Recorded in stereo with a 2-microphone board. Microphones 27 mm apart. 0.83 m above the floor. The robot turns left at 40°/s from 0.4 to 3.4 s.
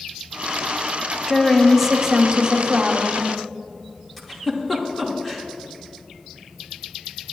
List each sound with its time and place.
1.3 s a woman speaking: 5° left, 1.4 m; by 3.3 s 75° right, 1.4 m
4.2 s a giggle: 10° left (ahead or behind), 1.8 m